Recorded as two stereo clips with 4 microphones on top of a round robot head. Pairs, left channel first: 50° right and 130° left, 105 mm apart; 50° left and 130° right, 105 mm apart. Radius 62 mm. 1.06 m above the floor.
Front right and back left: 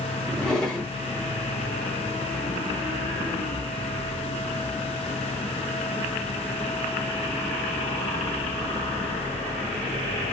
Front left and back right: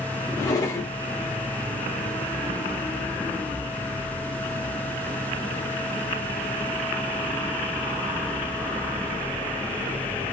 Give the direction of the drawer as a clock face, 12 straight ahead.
11 o'clock.